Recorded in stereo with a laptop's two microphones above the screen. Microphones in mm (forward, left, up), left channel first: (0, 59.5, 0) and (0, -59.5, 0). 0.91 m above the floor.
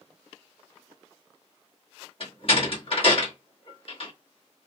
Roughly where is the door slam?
Left.